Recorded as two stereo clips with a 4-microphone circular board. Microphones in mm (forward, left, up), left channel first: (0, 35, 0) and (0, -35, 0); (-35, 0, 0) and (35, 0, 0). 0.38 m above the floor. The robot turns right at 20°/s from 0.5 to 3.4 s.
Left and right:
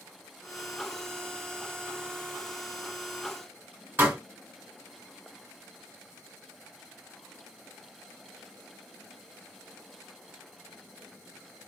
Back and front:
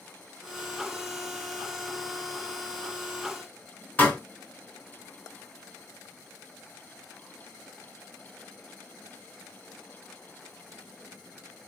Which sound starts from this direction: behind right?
A pop, at 4.0 s.